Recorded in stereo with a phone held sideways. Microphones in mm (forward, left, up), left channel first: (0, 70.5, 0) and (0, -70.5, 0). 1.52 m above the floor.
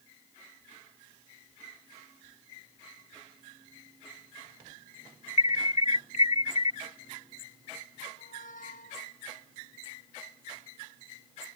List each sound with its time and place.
5.4 s an alarm: 55° left (ahead or behind)
8.2 s a squeak: 80° left